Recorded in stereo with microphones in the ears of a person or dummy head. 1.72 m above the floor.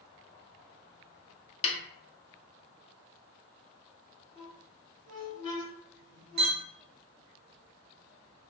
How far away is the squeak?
About 1.5 m.